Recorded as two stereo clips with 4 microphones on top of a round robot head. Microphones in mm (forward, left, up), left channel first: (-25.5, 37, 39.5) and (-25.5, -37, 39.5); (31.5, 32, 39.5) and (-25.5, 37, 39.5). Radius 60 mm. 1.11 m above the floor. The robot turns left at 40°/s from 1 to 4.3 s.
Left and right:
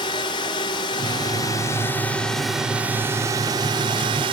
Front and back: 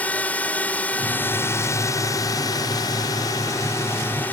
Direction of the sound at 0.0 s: 60° left.